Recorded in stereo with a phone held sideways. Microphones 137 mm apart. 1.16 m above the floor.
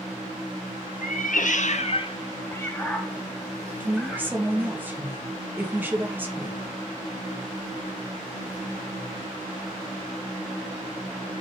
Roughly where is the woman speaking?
Centre.